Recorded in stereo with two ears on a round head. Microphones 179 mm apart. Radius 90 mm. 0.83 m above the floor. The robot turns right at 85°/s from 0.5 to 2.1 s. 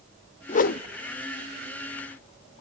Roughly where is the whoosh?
Left.